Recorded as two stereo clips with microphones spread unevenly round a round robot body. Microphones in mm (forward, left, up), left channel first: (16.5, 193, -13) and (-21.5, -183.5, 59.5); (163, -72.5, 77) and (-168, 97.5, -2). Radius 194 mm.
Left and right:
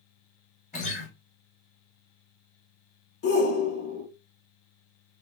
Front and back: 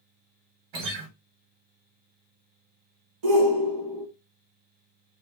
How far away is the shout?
About 1.1 m.